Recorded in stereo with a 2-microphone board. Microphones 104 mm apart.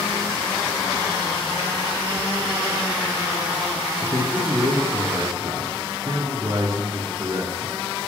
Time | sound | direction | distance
4.0 | a man speaking | 30° right (ahead or behind) | 3 m